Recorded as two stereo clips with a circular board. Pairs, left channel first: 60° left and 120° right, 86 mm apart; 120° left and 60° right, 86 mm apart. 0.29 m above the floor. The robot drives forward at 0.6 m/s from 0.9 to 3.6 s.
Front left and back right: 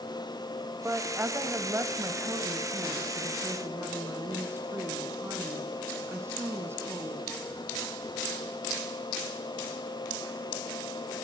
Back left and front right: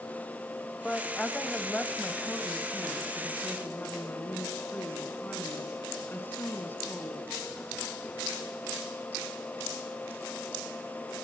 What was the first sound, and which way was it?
A woman speaking, 160° right.